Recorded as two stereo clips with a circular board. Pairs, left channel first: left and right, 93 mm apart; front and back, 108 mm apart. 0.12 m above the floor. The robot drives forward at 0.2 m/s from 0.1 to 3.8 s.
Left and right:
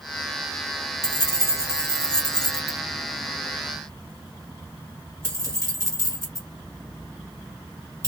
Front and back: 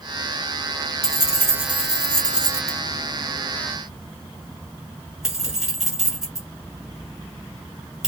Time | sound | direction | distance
1.0 | keys jangling | 55° right | 1.3 m